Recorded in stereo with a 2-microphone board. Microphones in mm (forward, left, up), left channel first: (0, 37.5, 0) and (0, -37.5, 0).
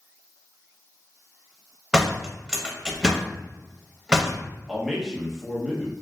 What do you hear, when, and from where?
1.9 s a door slam: 10° right (ahead or behind), 0.6 m
4.7 s a man speaking: 5° right (ahead or behind), 0.7 m